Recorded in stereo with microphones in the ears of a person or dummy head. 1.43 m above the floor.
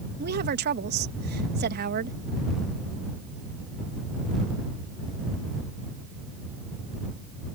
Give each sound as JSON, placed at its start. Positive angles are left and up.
{"t": 0.2, "sound": "a woman speaking", "side_deg": -50}